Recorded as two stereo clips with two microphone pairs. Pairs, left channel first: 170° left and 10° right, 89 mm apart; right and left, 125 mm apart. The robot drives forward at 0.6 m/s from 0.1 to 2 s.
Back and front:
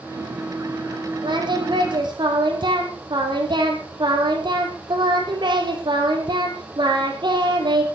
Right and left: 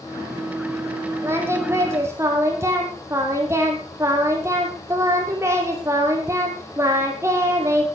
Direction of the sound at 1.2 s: 20° left.